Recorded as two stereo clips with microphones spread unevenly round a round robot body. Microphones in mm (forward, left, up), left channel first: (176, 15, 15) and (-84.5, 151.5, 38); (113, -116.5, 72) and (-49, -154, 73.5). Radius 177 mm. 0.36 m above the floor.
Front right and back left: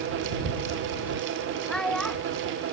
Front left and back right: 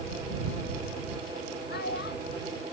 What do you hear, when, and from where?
1.7 s a child speaking: 60° left